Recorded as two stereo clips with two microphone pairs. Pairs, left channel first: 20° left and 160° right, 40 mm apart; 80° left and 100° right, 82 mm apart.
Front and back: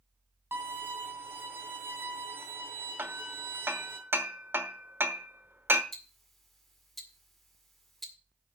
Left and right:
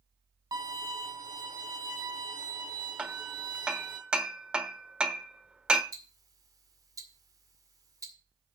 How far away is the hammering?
About 1.1 m.